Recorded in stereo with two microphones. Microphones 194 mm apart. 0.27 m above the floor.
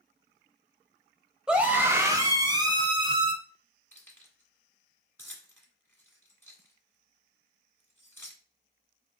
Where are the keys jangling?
10° left (ahead or behind), 1.6 m.